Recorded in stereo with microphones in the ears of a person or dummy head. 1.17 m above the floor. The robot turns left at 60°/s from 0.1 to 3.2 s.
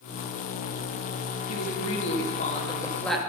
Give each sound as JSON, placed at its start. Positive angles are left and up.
{"t": 1.5, "sound": "a woman speaking", "azimuth_deg": 100, "distance_m": 1.9}